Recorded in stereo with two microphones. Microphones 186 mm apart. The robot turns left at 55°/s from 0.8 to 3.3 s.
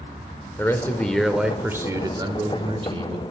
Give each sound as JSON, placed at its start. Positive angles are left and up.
{"t": 0.6, "sound": "a man speaking", "azimuth_deg": 25, "distance_m": 0.8}